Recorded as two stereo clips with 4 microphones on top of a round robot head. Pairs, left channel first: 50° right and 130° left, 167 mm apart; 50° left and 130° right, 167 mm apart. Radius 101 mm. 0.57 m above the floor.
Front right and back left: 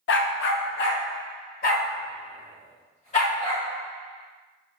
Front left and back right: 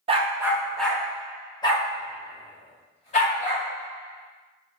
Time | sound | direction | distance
0.1 | a dog barking | 70° right | 0.5 m